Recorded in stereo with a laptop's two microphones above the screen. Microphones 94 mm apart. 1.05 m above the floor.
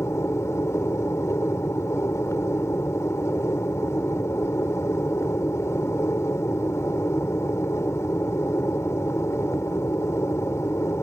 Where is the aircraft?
30° left (ahead or behind).